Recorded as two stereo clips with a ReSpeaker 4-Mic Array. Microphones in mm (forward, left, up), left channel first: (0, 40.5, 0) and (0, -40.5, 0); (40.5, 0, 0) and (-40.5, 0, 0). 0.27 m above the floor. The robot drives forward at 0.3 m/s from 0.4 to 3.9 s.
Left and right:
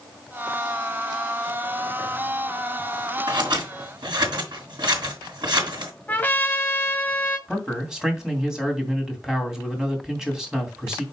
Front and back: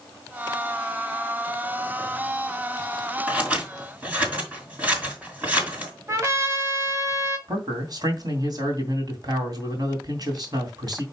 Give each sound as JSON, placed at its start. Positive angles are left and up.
{"t": 3.3, "sound": "scissors", "azimuth_deg": -105, "distance_m": 4.0}
{"t": 6.1, "sound": "a trumpet", "azimuth_deg": 150, "distance_m": 1.7}
{"t": 7.5, "sound": "a man speaking", "azimuth_deg": -170, "distance_m": 2.5}